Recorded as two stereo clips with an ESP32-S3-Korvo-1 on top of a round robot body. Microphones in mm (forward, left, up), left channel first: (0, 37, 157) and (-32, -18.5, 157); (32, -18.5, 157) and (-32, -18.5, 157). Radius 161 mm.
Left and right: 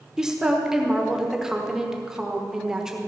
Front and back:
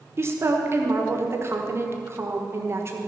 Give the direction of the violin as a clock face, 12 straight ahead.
I don't hear a violin.